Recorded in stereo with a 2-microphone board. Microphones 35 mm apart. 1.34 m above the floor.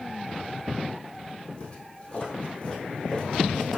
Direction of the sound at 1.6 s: 35° left (ahead or behind).